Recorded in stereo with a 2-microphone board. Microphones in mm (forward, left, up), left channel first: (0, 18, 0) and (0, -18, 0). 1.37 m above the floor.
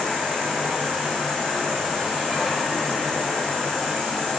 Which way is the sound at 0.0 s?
Centre (ahead or behind).